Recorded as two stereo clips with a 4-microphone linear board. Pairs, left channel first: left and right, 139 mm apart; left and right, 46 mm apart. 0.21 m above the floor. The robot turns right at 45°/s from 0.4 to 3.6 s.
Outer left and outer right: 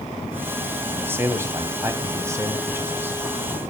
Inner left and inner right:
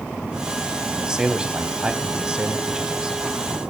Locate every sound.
0.9 s a man speaking: 15° right (ahead or behind), 1.0 m